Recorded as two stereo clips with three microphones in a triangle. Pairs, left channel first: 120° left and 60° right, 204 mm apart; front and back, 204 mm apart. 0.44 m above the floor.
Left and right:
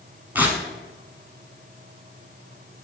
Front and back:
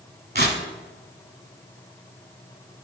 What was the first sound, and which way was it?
Tearing paper, 140° right.